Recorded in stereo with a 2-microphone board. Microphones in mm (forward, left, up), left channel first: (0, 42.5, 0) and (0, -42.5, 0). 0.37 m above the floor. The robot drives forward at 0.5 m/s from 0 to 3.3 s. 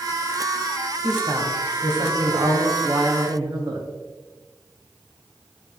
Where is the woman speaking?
55° right (ahead or behind), 1.9 m; by 3.9 s 60° right (ahead or behind), 1.8 m.